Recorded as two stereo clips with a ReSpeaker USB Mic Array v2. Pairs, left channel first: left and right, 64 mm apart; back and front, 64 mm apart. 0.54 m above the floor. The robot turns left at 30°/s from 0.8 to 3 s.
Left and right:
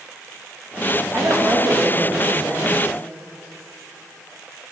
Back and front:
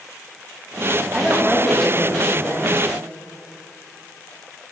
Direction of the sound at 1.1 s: 80° right.